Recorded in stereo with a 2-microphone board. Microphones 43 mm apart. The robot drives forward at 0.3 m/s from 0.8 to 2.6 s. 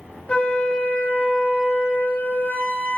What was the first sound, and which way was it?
A flute, 35° left (ahead or behind).